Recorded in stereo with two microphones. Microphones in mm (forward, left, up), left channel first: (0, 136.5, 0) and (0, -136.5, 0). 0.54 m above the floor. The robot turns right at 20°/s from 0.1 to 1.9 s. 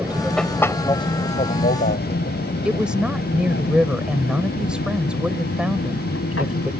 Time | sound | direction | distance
0.0 | an aircraft | 5° right (ahead or behind) | ?
2.6 | a woman speaking | 5° right (ahead or behind) | ?